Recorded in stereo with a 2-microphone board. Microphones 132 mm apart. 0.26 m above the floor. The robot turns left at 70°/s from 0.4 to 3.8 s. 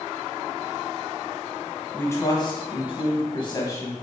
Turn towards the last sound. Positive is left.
turn(degrees=30)